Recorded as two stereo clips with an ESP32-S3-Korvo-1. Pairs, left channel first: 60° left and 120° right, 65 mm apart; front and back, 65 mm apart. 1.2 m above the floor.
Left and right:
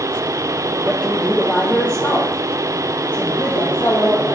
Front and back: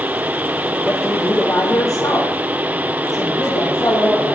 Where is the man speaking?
15° right, 0.7 m; by 4.3 s 20° left, 2.5 m.